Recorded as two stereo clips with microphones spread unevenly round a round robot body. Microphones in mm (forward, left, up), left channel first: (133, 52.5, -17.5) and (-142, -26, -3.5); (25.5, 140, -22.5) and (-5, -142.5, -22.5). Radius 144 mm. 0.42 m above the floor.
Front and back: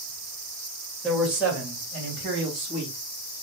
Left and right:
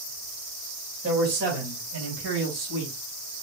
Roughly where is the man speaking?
Right.